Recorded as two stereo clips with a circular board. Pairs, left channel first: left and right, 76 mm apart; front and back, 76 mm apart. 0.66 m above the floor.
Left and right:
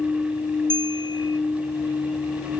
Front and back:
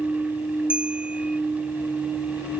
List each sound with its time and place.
0.7 s a bell: 105° left